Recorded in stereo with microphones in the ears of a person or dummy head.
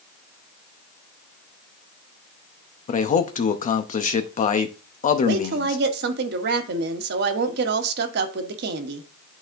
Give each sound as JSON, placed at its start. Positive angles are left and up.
{"t": 2.9, "sound": "a man speaking", "side_deg": 40, "distance_m": 0.6}
{"t": 5.2, "sound": "a woman speaking", "side_deg": -55, "distance_m": 1.0}